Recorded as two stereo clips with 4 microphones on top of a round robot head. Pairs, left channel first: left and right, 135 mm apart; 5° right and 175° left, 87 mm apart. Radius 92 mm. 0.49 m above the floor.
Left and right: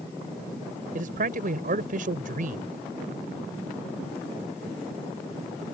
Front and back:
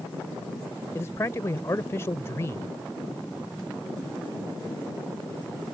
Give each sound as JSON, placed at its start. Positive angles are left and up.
{"t": 0.9, "sound": "a man speaking", "azimuth_deg": -70}